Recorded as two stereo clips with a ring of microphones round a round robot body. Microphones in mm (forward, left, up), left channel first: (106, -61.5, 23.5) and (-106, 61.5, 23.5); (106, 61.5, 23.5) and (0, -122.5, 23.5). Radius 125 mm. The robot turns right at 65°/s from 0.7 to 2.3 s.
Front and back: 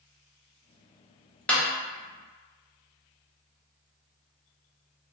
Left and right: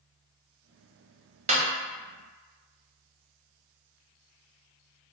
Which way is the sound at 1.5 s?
110° right.